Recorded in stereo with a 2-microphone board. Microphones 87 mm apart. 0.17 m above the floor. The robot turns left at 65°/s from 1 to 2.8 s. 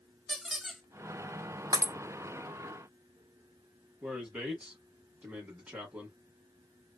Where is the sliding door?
No sliding door in this recording.